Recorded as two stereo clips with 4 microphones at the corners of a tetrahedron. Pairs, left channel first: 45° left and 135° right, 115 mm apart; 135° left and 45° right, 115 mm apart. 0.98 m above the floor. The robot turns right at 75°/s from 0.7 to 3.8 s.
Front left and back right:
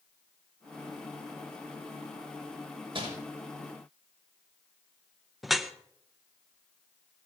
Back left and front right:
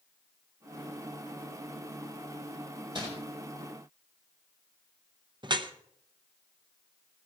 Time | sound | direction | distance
3.0 | crumpling | 90° right | 5.5 m
5.4 | dripping | 45° right | 0.8 m